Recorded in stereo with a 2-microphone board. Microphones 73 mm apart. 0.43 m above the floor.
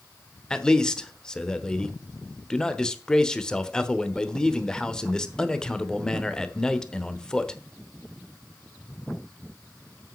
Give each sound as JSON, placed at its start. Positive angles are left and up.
{"t": 0.5, "sound": "a man speaking", "side_deg": 10, "distance_m": 1.0}